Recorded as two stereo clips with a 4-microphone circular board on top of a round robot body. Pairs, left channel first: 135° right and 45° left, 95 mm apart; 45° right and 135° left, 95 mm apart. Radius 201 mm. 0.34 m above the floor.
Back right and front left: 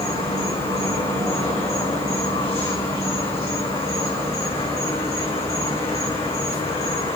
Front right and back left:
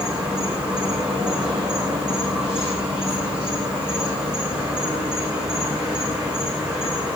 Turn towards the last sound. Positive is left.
turn(degrees=-145)